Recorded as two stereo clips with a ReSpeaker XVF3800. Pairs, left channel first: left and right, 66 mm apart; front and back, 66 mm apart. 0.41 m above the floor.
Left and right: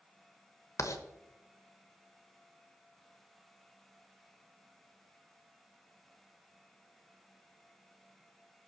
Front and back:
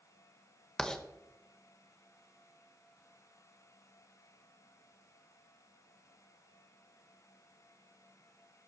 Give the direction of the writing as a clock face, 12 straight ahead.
9 o'clock.